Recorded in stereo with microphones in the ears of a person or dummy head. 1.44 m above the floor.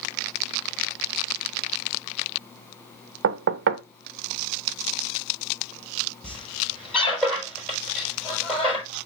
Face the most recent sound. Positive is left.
turn(degrees=10)  # may be behind; listen again after turning